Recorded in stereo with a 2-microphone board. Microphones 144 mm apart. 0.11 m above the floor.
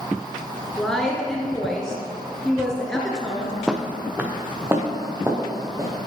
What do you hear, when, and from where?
0.8 s a woman speaking: 5° left (ahead or behind), 1.5 m
3.7 s footsteps: 5° right (ahead or behind), 1.0 m; by 6.0 s 20° right (ahead or behind), 2.5 m